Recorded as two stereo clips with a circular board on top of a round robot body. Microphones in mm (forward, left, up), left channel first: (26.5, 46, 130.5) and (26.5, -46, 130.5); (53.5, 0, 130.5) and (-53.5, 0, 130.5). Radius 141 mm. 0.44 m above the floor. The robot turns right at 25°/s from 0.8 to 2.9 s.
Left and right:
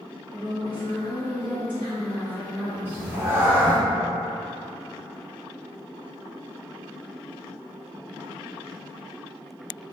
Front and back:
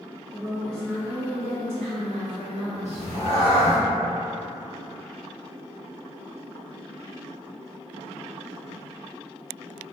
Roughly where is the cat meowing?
Ahead right.